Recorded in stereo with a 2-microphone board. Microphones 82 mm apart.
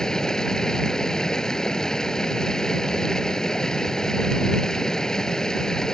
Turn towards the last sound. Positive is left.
turn(degrees=10)  # may be behind; listen again after turning